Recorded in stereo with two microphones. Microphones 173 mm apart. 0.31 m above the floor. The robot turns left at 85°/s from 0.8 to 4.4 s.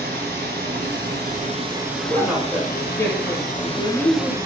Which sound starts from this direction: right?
Running water, at 0.0 s.